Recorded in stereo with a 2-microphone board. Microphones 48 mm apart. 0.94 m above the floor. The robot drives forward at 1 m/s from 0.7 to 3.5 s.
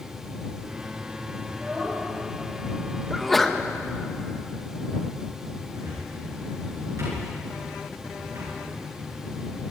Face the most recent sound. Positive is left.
turn(degrees=-80)